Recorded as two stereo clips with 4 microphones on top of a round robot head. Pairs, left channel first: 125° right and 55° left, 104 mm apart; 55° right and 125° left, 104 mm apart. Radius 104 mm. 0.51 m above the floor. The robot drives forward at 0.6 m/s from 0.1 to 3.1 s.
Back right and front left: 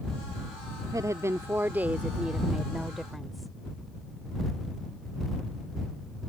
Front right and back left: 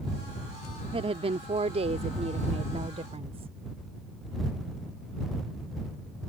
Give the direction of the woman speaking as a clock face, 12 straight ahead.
8 o'clock.